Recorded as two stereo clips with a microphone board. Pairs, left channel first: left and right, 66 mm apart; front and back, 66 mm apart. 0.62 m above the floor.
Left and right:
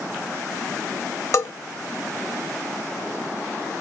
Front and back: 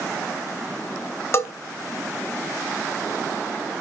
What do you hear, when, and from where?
1.3 s a bell: 45° left, 0.9 m